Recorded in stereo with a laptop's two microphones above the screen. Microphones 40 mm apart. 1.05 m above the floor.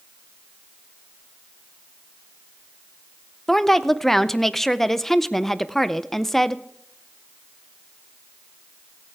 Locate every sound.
3.5 s a woman speaking: 5° left (ahead or behind), 0.5 m